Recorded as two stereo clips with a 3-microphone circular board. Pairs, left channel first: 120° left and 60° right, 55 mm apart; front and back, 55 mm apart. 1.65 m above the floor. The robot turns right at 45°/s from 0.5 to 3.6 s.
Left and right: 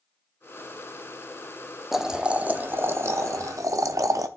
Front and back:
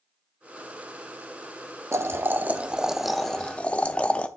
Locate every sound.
1.9 s boiling: 145° right, 0.6 m; by 4.3 s 65° right, 0.6 m